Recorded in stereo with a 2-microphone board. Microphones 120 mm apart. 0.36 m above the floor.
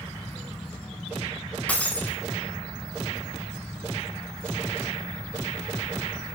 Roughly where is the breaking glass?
Centre.